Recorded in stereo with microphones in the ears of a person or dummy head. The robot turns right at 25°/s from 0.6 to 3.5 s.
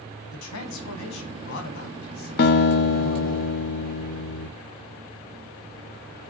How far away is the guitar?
About 0.6 m.